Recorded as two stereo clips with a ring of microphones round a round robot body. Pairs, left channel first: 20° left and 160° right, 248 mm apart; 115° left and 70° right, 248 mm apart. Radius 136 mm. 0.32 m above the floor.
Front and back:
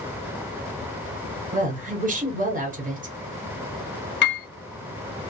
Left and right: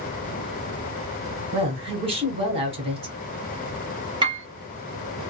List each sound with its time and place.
1.5 s a woman speaking: 120° right, 1.4 m
4.2 s a piano: straight ahead, 1.1 m